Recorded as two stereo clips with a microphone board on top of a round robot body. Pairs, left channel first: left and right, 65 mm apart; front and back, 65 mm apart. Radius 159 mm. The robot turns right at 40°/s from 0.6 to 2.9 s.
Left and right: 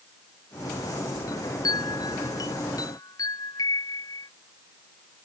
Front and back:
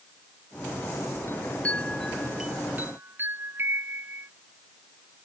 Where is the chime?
55° left; by 4.3 s 120° left.